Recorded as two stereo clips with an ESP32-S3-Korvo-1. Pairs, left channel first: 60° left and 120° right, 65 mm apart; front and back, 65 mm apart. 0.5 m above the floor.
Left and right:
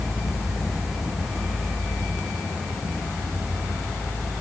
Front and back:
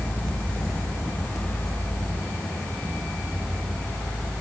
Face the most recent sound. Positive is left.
No sound to turn to.